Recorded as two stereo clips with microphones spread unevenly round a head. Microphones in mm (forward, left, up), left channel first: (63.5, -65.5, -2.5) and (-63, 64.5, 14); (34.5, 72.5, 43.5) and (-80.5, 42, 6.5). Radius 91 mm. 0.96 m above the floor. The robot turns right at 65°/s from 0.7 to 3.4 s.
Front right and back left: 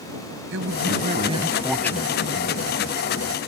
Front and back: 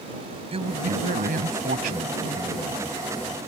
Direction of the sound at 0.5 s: 155° left.